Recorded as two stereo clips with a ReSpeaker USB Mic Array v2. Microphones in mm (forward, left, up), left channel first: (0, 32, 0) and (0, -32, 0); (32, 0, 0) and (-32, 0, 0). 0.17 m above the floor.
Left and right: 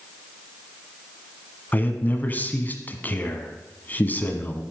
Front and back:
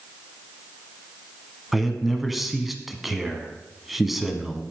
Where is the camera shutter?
I don't hear a camera shutter.